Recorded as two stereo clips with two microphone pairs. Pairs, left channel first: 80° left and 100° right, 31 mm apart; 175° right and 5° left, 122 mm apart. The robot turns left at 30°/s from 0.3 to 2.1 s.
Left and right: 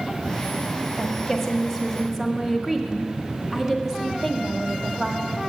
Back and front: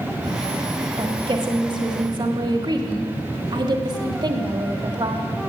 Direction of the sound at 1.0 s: 5° left.